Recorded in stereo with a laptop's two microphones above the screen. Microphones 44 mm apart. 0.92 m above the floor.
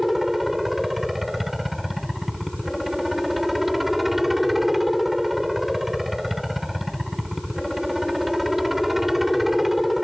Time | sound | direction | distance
0.0 | a helicopter | 5° right (ahead or behind) | ?